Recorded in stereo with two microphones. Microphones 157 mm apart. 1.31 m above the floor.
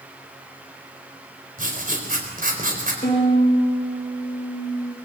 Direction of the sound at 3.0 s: 45° left (ahead or behind).